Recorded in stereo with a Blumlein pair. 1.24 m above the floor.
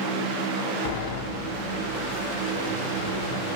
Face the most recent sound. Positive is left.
turn(degrees=50)